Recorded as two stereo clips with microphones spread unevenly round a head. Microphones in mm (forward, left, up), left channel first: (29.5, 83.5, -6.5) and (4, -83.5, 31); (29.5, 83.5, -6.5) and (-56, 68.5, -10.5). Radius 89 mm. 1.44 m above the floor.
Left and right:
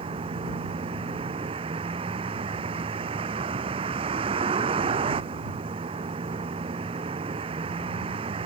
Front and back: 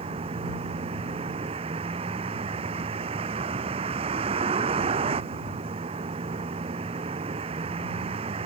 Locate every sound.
0.0 s a vehicle: 160° right